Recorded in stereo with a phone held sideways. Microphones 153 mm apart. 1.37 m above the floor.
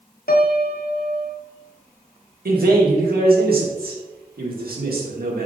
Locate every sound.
0.3 s a piano: 75° left (ahead or behind), 0.8 m
2.5 s a man speaking: 85° right, 1.8 m